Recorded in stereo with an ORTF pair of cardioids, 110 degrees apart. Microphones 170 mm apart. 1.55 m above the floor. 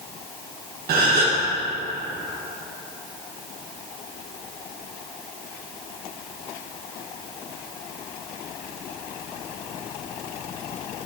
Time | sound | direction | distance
0.9 | a gasp | 60° right | 1.9 m